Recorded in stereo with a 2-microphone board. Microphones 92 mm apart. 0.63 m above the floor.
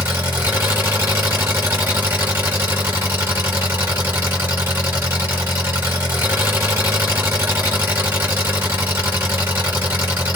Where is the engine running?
25° right (ahead or behind), 1.8 m.